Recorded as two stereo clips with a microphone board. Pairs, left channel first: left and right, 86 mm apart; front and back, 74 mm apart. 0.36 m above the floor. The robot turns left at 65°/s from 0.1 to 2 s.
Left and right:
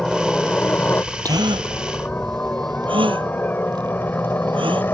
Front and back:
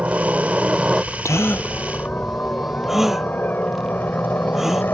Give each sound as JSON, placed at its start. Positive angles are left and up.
{"t": 0.0, "sound": "a helicopter", "azimuth_deg": 165}
{"t": 1.2, "sound": "a gasp", "azimuth_deg": -45}